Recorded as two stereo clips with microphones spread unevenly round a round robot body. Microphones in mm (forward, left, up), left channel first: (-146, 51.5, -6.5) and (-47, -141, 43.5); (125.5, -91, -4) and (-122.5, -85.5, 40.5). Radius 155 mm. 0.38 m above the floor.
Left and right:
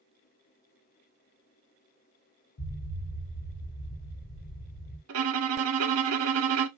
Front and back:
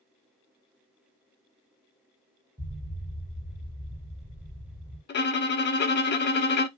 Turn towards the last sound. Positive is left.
turn(degrees=-55)